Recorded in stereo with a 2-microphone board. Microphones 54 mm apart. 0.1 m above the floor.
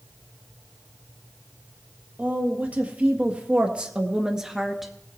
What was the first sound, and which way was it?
A woman speaking, 30° right (ahead or behind).